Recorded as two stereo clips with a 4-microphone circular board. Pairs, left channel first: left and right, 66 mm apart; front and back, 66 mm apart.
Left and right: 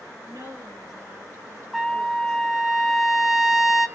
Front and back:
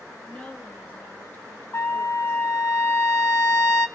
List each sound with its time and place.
0.3 s a woman speaking: 70° right, 3 m; by 2.4 s 50° right, 4 m
1.7 s a trumpet: 5° right, 0.7 m